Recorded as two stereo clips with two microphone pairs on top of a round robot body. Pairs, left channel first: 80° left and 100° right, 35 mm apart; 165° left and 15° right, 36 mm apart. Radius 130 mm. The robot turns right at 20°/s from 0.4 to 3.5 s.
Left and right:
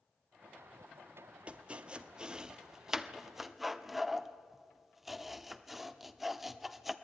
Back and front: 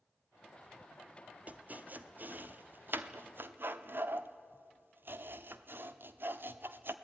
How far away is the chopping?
About 1.1 m.